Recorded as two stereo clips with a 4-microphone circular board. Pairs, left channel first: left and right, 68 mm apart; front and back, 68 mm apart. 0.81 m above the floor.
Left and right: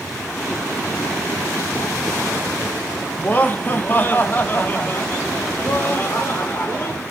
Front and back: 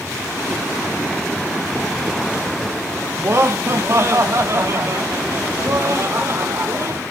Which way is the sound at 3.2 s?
145° left.